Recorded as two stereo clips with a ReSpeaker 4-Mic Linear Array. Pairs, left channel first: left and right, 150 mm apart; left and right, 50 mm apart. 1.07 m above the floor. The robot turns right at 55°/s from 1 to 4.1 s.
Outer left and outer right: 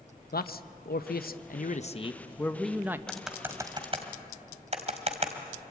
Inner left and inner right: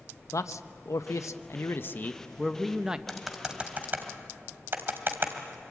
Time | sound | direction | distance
0.3 | a man speaking | 85° left | 0.8 m
3.1 | typing on a keyboard | 5° left (ahead or behind) | 2 m